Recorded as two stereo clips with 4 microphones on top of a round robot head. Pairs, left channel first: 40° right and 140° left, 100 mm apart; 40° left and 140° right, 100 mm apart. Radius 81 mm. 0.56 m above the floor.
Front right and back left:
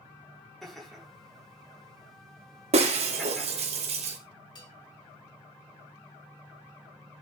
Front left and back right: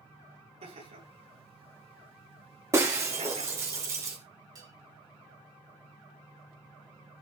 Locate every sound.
0.6 s laughter: 130° right, 9 m
2.7 s breaking glass: 160° left, 2.5 m
4.5 s a bell: 85° right, 3.5 m